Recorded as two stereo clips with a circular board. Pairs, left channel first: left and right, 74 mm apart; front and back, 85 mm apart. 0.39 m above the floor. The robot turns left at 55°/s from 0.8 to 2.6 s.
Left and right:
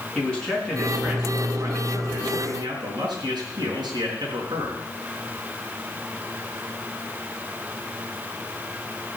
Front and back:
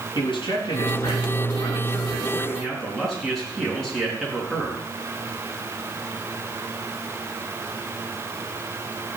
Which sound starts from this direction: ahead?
A man speaking, at 0.1 s.